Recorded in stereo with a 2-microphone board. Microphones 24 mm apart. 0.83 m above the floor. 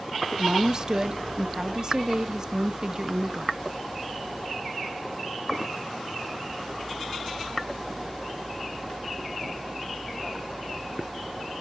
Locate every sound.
0.4 s a woman speaking: 30° right (ahead or behind), 0.5 m